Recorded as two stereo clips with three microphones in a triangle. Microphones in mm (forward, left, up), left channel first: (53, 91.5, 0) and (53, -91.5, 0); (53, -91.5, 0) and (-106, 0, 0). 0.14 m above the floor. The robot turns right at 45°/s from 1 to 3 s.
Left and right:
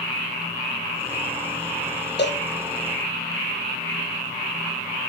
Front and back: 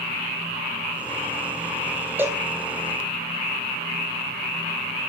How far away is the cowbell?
About 1.8 m.